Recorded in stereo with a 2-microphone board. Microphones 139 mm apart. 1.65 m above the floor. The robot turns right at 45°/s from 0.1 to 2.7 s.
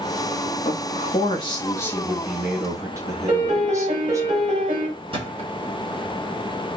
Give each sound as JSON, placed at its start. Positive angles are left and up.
{"t": 0.7, "sound": "a man speaking", "azimuth_deg": 110, "distance_m": 0.8}
{"t": 3.3, "sound": "a piano", "side_deg": -55, "distance_m": 1.7}
{"t": 5.1, "sound": "a thud", "side_deg": -45, "distance_m": 1.3}